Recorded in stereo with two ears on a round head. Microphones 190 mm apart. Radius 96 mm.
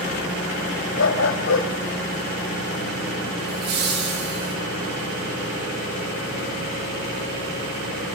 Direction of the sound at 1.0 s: 65° left (ahead or behind).